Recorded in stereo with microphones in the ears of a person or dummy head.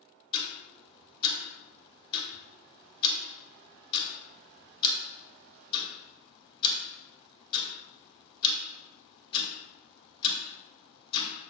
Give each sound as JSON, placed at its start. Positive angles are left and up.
{"t": 0.3, "sound": "ticking", "side_deg": 35, "distance_m": 1.3}